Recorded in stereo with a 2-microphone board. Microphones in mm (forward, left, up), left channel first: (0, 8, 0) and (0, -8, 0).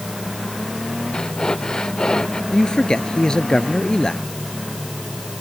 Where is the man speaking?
50° left (ahead or behind).